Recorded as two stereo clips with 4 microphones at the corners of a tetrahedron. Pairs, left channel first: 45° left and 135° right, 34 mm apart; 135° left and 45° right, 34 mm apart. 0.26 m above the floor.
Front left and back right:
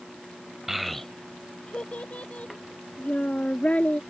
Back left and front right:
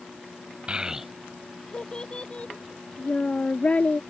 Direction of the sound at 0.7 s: 65° right.